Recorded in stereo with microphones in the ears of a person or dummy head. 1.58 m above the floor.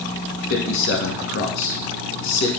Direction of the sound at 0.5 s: 75° left (ahead or behind).